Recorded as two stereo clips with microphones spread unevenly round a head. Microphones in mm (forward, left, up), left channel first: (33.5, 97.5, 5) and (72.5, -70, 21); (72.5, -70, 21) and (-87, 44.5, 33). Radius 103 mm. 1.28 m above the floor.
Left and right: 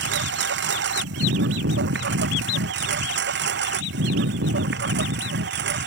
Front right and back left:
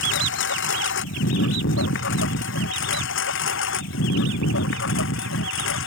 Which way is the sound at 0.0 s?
65° right.